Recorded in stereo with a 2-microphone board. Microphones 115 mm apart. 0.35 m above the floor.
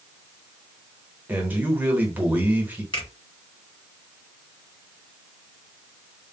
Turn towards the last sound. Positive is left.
turn(degrees=45)  # may be behind; listen again after turning